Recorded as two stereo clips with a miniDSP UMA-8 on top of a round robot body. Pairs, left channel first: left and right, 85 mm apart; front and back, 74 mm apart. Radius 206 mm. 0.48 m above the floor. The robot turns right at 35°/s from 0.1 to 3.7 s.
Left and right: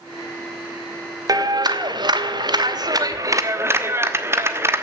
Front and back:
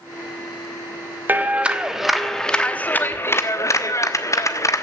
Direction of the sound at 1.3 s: 120° right.